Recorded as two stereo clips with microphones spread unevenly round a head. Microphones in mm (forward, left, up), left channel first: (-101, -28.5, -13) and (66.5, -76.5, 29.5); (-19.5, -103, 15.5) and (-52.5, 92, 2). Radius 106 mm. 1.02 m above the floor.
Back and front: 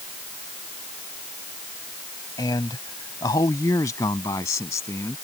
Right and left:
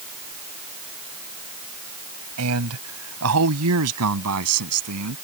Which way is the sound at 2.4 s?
90° left.